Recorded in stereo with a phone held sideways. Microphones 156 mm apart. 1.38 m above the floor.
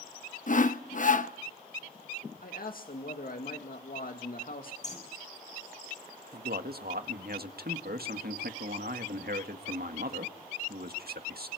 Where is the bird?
50° left (ahead or behind), 6 m.